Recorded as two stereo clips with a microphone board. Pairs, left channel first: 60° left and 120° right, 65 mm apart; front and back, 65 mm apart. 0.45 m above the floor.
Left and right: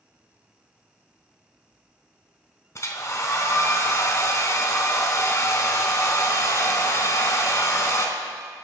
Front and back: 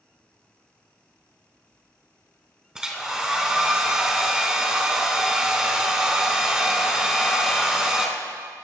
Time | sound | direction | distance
2.8 | a hair dryer | 100° left | 1.3 m